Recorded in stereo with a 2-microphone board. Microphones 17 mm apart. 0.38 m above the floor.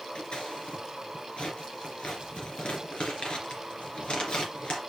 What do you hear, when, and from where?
0.1 s scissors: 80° left, 3 m